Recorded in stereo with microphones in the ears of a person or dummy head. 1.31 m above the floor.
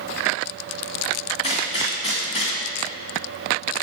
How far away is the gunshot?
About 2 m.